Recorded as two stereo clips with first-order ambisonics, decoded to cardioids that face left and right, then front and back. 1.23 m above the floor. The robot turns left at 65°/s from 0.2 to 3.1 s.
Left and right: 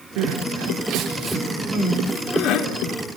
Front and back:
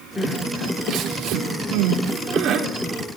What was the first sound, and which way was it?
Crying, 90° right.